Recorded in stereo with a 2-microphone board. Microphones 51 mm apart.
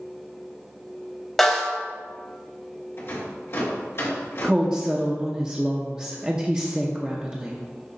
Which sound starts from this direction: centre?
A snare drum, at 1.4 s.